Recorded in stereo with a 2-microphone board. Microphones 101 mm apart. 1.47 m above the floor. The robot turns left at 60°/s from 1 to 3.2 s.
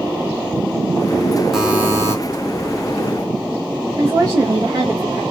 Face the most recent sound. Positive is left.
turn(degrees=-35)  # may be behind; listen again after turning